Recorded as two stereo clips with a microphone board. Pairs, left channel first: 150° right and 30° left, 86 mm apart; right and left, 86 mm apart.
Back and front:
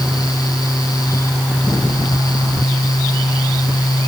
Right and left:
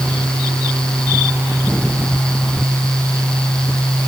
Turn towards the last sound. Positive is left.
No sound to turn to.